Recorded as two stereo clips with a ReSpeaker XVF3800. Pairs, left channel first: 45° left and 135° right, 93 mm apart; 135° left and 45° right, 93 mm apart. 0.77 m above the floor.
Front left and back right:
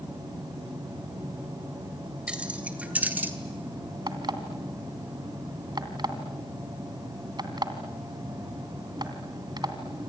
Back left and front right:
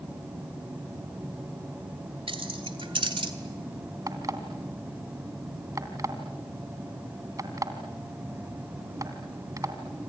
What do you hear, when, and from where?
2.3 s keys jangling: 55° right, 2.5 m; by 3.3 s 65° right, 2.0 m
4.1 s an alarm clock: 95° right, 2.5 m